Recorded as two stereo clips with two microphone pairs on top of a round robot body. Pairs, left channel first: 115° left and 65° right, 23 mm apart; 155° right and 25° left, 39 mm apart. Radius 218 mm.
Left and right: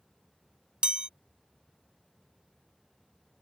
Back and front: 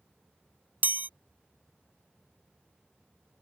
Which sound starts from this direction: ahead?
A chime, at 0.8 s.